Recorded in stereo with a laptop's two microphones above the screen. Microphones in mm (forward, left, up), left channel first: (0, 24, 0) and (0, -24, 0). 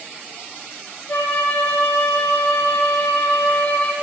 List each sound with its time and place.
1.1 s a flute: 40° left (ahead or behind), 1.4 m